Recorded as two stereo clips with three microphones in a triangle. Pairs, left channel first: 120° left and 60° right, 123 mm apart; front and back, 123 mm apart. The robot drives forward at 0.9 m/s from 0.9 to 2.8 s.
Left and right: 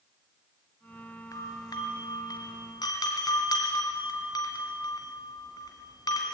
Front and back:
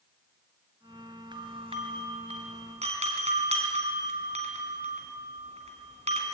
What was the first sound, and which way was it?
A doorbell, 165° left.